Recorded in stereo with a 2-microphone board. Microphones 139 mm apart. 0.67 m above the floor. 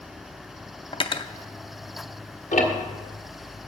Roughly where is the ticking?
Left.